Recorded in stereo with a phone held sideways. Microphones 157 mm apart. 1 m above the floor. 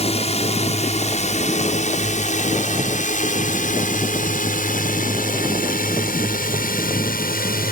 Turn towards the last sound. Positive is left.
turn(degrees=65)  # may be behind; listen again after turning